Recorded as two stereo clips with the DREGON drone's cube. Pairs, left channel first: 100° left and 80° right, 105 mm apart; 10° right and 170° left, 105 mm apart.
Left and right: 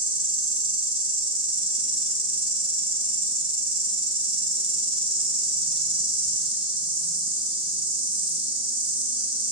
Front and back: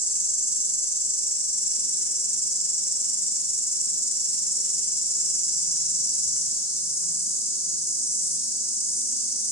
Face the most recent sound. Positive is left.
turn(degrees=-75)